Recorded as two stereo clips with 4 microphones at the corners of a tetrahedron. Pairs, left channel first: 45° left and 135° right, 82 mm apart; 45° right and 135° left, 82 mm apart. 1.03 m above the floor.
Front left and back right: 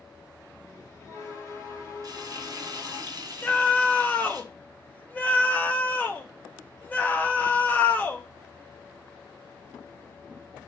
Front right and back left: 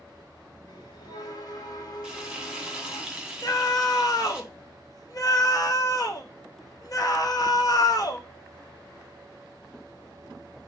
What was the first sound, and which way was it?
A bell, 10° right.